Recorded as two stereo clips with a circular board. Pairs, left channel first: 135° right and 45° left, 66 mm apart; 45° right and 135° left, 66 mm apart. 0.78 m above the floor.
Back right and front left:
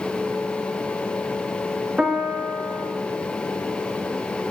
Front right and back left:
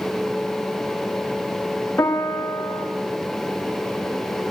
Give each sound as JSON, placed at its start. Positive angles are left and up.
{"t": 2.0, "sound": "a piano", "azimuth_deg": -25, "distance_m": 1.5}